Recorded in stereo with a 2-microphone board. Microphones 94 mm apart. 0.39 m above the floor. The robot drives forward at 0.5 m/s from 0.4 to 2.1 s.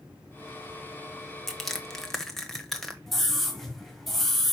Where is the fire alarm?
No fire alarm in this recording.